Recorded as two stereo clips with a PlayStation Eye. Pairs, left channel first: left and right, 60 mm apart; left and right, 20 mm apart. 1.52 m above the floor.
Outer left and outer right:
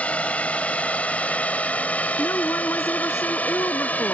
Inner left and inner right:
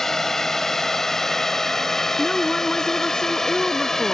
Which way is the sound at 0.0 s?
20° left (ahead or behind).